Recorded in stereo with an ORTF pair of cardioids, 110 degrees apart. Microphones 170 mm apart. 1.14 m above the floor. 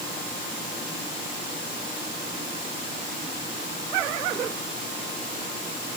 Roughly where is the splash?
I don't hear a splash.